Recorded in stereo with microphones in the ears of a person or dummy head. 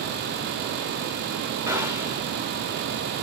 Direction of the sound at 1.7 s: 20° right (ahead or behind).